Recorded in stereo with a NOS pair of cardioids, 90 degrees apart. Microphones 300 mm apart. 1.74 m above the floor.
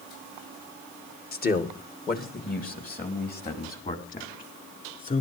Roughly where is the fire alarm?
I don't hear a fire alarm.